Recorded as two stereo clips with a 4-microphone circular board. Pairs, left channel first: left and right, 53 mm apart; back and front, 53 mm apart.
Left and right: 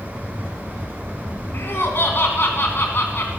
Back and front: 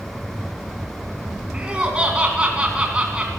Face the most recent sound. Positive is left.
turn(degrees=65)